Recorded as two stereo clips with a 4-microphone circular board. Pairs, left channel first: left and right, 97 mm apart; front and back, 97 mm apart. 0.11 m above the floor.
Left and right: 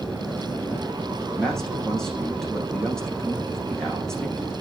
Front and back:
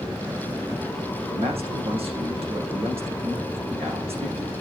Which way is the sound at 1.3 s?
175° left.